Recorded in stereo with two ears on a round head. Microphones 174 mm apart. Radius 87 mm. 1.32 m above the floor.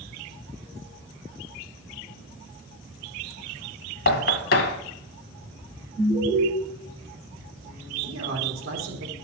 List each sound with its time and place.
4.1 s knocking: 55° left (ahead or behind), 1.4 m
6.0 s an alarm: 25° right (ahead or behind), 5.5 m
8.0 s a man speaking: 65° right (ahead or behind), 3 m